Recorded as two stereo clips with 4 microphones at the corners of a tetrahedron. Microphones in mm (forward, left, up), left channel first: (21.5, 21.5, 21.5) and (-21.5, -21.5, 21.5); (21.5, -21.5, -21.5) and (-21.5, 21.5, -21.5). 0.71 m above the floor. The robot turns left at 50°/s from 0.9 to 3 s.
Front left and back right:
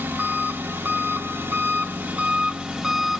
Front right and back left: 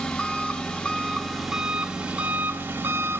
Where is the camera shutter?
No camera shutter in this recording.